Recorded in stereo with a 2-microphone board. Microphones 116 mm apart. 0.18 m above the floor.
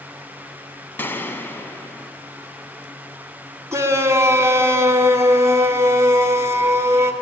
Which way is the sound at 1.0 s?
20° left (ahead or behind).